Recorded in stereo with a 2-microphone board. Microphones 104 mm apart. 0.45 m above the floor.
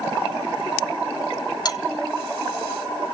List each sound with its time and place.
1.6 s a bell: 40° left (ahead or behind), 1.7 m